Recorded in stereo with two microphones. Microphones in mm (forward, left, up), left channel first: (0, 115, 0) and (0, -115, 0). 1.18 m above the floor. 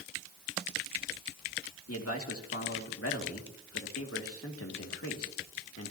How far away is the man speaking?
About 2.5 m.